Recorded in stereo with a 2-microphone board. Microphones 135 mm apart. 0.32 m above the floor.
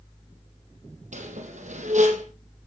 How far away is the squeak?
About 4.5 m.